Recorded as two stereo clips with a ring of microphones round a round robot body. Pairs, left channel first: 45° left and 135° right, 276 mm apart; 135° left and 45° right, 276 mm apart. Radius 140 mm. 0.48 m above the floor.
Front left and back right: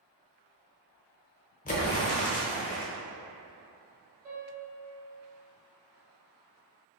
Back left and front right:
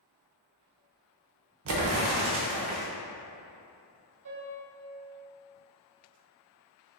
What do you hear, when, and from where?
1.6 s an explosion: 15° right, 0.8 m
4.2 s a piano: 75° right, 1.2 m